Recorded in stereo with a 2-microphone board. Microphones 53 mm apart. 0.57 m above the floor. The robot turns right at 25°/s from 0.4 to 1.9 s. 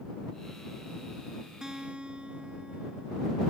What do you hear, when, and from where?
1.6 s a guitar: 10° right (ahead or behind); by 3.4 s 20° right (ahead or behind)